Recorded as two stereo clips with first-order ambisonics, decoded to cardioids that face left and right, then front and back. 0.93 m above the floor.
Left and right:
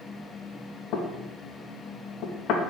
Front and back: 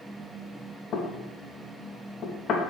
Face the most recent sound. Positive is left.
turn(degrees=55)